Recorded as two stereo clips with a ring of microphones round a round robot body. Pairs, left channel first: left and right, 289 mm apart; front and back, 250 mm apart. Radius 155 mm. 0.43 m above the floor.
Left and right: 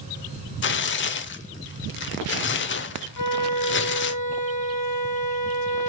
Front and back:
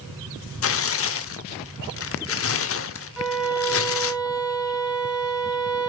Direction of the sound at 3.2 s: 90° left.